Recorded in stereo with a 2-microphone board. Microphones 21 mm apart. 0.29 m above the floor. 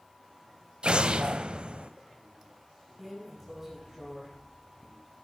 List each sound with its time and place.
0.8 s an explosion: 55° right (ahead or behind), 0.6 m
3.0 s a drawer: 10° right (ahead or behind), 4 m